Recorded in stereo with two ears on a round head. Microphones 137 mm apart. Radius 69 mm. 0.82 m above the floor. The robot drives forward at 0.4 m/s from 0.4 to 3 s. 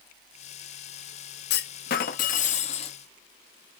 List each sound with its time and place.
1.5 s a clunk: 70° left (ahead or behind), 0.6 m; by 3.0 s 40° left (ahead or behind), 0.9 m